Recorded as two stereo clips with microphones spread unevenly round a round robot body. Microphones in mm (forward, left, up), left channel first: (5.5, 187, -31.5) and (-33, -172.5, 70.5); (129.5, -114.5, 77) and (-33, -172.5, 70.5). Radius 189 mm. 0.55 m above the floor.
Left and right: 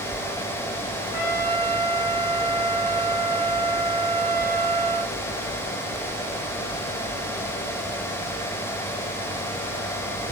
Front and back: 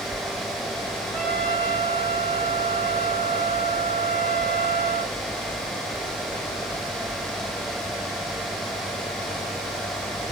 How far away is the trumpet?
About 5.5 m.